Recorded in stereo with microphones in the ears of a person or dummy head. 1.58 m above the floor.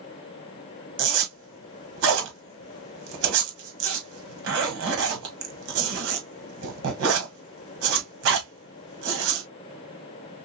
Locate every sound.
1.0 s a zipper: 75° right (ahead or behind), 1.9 m